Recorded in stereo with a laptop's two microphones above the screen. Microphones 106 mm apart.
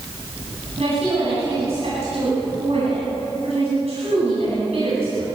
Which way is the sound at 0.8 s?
70° right (ahead or behind).